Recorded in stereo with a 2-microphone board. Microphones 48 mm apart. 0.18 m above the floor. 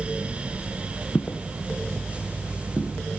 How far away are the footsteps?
About 1.1 m.